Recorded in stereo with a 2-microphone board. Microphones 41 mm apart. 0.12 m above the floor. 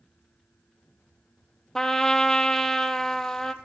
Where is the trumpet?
10° left (ahead or behind), 0.5 m.